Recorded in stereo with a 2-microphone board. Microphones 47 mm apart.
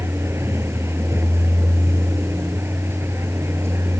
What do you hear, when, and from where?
0.0 s a vehicle: 70° right (ahead or behind)